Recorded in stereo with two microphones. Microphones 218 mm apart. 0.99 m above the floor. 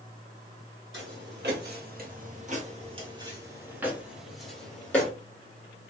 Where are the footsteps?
60° right (ahead or behind), 1.8 m; by 5.1 s 10° left (ahead or behind), 2.0 m.